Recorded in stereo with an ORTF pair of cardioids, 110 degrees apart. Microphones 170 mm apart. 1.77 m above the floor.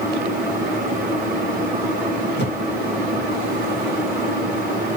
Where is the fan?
65° right, 1.2 m.